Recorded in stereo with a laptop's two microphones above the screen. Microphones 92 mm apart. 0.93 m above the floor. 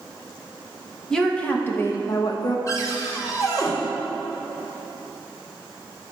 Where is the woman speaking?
5° left (ahead or behind), 1.0 m; by 2.6 s 55° left (ahead or behind), 0.8 m.